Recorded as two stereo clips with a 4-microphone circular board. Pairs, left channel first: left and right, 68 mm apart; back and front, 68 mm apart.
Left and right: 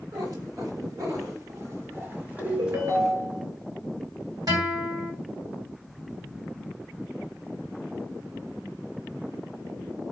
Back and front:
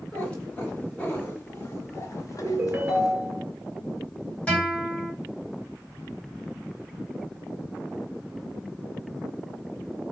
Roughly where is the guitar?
Right.